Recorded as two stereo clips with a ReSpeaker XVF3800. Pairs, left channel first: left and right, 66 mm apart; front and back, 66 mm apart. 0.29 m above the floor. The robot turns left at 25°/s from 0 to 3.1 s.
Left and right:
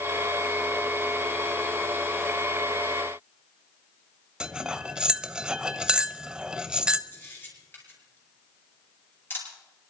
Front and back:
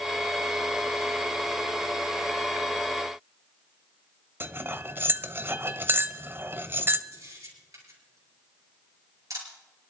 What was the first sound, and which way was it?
Cutlery clinking, 155° right.